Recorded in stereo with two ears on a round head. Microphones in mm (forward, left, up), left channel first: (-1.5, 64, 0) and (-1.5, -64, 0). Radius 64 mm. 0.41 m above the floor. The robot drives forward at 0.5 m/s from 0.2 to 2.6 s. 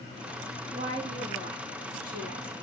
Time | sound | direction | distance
0.7 | a woman speaking | 40° right (ahead or behind) | 4.5 m